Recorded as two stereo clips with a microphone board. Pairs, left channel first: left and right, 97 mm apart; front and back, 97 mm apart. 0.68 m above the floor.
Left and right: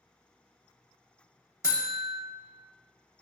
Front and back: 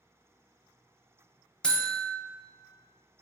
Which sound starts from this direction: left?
A buzzer, at 1.6 s.